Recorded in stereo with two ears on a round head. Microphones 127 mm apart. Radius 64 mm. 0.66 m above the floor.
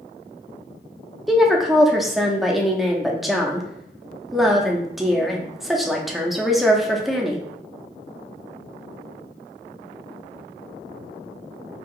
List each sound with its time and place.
1.3 s a woman speaking: centre (ahead or behind), 0.7 m